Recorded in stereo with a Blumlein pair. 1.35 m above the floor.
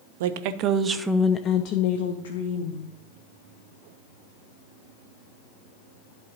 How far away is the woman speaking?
About 0.7 m.